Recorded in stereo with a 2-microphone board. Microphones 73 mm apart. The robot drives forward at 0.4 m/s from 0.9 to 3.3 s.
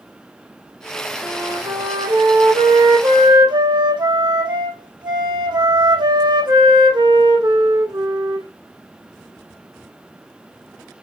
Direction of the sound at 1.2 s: 70° right (ahead or behind).